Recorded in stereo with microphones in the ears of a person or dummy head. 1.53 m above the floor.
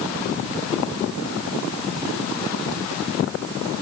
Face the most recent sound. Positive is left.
No sound to turn to.